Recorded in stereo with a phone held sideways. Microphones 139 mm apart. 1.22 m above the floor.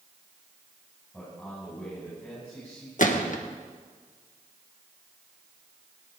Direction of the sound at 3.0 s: 65° left (ahead or behind).